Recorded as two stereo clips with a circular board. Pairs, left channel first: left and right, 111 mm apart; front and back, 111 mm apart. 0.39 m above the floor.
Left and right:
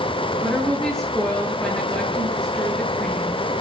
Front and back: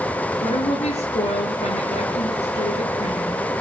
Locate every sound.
0.4 s a woman speaking: 5° left, 7 m